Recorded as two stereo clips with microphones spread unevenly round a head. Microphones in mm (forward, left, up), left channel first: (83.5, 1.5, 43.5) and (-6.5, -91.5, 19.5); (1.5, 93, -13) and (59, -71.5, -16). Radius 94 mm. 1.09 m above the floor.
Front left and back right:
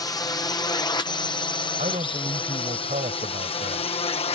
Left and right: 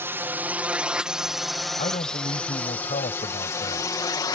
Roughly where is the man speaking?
Behind.